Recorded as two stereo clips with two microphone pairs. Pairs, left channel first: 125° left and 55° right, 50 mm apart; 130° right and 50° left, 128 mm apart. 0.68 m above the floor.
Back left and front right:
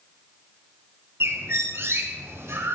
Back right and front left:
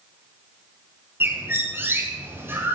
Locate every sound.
1.2 s a bird: 25° right, 6 m